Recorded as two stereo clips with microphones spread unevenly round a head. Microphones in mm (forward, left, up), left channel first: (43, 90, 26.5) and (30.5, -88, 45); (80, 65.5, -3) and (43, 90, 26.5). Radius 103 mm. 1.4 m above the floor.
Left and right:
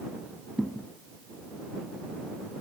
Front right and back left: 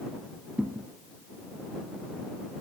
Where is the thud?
175° left.